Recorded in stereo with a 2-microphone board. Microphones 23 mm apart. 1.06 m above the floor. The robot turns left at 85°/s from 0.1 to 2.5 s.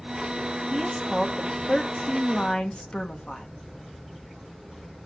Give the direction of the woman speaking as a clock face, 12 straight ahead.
5 o'clock.